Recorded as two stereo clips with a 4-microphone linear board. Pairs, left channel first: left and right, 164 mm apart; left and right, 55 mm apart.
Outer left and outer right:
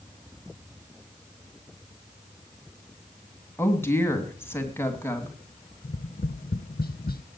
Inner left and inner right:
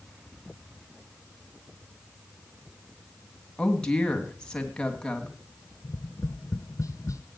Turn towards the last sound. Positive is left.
turn(degrees=70)  # may be behind; listen again after turning